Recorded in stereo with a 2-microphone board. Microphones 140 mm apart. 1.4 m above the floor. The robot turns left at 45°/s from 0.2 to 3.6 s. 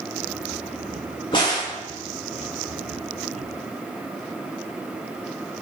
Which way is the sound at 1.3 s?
35° left (ahead or behind).